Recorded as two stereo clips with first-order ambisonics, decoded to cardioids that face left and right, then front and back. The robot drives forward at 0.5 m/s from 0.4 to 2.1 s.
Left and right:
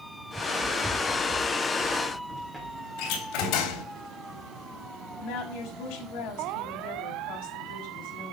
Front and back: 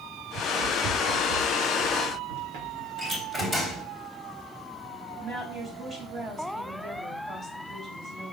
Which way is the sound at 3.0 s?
105° left.